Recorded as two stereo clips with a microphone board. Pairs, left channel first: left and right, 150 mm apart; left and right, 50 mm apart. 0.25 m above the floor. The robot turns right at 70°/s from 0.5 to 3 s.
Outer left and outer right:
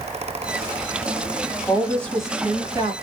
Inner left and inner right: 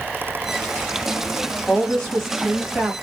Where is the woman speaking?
145° left, 1.5 m; by 2.9 s 130° right, 1.5 m.